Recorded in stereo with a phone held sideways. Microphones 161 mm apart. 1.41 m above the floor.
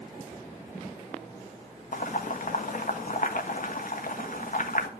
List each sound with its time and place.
1.9 s boiling: 60° left (ahead or behind), 1.3 m